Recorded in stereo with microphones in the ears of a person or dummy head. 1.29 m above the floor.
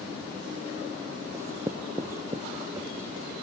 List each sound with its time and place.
1.3 s writing: 20° right (ahead or behind)